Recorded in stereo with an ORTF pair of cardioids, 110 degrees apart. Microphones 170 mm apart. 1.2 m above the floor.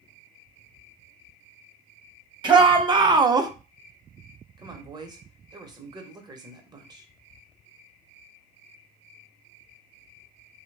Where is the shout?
25° right, 1.2 m.